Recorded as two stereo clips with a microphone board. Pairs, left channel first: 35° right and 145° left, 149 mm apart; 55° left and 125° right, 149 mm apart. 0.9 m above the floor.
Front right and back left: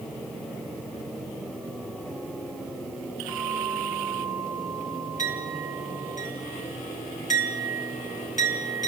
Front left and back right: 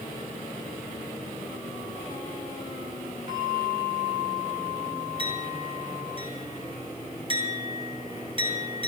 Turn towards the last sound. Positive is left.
turn(degrees=-70)